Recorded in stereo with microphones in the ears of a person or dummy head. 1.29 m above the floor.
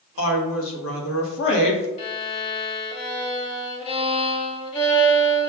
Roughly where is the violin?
Left.